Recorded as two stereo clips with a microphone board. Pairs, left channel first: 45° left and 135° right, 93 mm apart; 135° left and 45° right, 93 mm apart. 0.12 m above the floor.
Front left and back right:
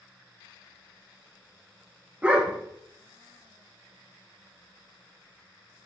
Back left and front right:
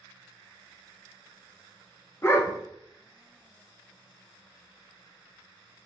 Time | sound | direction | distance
2.2 | a dog barking | 160° left | 0.7 m